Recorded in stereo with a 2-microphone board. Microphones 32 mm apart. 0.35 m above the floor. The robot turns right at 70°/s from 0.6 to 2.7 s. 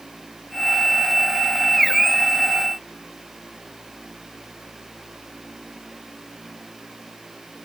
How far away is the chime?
I don't hear a chime.